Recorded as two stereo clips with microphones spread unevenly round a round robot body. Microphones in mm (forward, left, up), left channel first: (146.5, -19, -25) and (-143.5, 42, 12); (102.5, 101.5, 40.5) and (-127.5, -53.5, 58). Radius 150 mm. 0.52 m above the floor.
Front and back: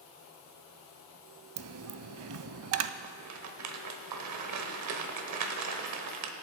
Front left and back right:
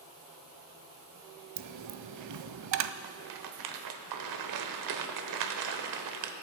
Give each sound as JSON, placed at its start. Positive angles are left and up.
{"t": 1.6, "sound": "a dropped coin", "azimuth_deg": -160, "distance_m": 0.6}
{"t": 3.0, "sound": "a rattle", "azimuth_deg": -155, "distance_m": 1.2}